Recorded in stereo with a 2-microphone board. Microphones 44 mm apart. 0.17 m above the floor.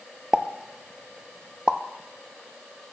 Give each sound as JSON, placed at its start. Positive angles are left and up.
{"t": 0.3, "sound": "a pop", "side_deg": -20, "distance_m": 0.6}